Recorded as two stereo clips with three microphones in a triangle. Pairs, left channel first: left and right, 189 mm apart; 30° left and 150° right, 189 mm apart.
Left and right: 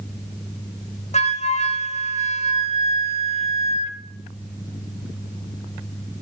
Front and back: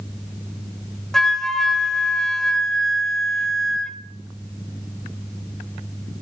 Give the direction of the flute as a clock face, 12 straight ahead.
8 o'clock.